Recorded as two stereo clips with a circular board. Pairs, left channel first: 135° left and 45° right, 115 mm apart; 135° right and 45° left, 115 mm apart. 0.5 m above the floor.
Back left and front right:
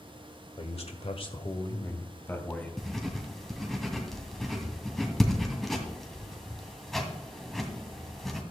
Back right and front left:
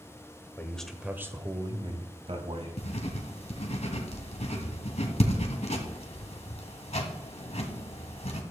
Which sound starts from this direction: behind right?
Writing, at 2.8 s.